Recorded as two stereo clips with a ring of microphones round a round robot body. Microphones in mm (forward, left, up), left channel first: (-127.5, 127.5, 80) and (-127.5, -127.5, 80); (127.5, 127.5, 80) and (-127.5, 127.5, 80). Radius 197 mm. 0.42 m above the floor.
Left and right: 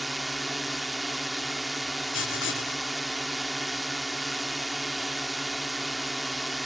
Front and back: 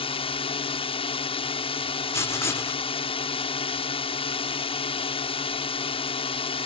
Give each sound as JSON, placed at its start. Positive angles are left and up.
{"t": 0.0, "sound": "a drone", "azimuth_deg": 0}
{"t": 2.1, "sound": "writing", "azimuth_deg": 75}